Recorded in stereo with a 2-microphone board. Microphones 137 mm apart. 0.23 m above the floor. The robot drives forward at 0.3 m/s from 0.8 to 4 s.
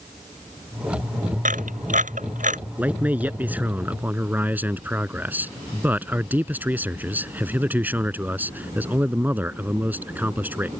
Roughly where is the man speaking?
Centre.